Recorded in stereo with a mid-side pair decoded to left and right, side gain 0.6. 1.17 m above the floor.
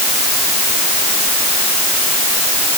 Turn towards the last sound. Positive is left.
No sound to turn to.